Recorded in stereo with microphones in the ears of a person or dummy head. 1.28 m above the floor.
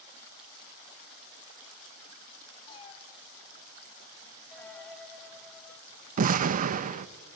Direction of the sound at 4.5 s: 5° left (ahead or behind).